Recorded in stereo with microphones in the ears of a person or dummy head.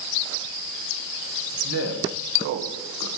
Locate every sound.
1.6 s a man speaking: 85° right, 1.4 m